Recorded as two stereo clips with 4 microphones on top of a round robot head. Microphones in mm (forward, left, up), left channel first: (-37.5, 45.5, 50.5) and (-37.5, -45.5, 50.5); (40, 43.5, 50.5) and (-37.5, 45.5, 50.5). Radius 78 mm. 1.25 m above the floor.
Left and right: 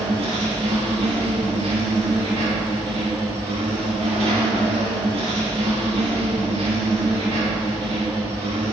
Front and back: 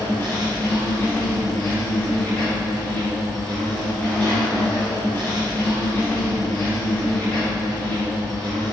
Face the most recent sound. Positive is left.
turn(degrees=-75)